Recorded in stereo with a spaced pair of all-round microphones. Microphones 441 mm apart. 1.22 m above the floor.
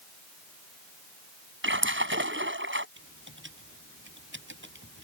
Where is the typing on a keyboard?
25° right (ahead or behind).